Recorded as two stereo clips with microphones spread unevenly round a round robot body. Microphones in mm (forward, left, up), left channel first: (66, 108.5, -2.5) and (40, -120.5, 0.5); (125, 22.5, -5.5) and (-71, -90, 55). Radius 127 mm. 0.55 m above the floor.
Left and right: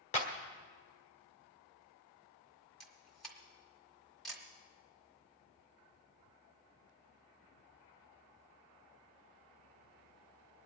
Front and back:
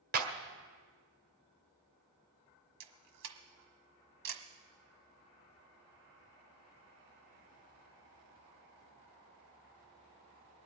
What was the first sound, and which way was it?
A clap, 145° left.